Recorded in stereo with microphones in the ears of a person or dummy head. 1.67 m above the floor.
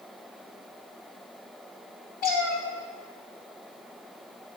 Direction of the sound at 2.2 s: 50° left (ahead or behind).